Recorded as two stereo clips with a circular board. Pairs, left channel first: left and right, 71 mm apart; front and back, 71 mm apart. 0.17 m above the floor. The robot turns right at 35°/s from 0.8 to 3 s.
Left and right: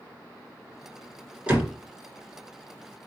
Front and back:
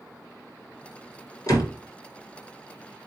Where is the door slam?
20° right, 1.7 m; by 1.7 s 10° right, 1.7 m.